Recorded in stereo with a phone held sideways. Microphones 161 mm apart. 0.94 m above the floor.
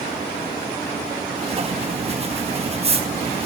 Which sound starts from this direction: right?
Writing, at 1.4 s.